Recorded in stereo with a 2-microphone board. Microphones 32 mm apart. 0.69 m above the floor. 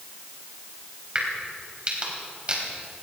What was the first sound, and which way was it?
A crack, 30° right (ahead or behind).